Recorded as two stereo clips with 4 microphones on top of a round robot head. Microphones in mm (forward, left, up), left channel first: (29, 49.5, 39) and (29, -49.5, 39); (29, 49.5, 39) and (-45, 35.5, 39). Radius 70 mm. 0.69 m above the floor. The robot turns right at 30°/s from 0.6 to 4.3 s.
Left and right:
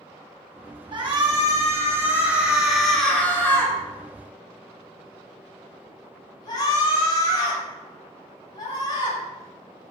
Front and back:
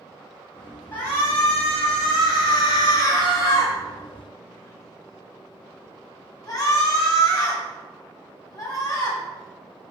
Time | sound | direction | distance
0.9 | a shout | 55° right | 6.5 m